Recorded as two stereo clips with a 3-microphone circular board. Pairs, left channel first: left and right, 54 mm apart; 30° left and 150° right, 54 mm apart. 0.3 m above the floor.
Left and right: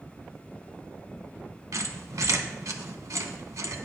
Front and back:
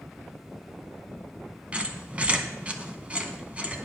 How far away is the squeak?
About 0.6 m.